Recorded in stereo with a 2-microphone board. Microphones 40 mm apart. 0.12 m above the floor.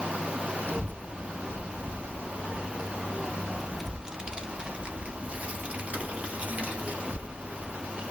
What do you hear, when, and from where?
0.7 s a child speaking: 50° left (ahead or behind), 1.5 m; by 8.0 s 45° right (ahead or behind), 2.5 m